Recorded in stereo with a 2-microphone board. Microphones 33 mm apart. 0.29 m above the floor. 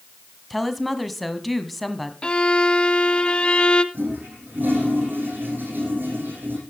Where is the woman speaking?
5° left (ahead or behind), 1.8 m.